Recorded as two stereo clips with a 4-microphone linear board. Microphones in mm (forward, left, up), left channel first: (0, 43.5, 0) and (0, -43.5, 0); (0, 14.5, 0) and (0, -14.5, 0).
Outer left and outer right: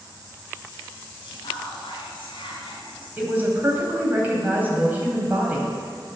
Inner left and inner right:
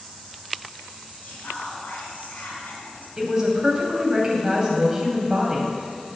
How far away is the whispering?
About 3.5 m.